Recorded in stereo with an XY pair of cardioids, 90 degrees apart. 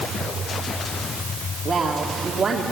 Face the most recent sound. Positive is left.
turn(degrees=-40)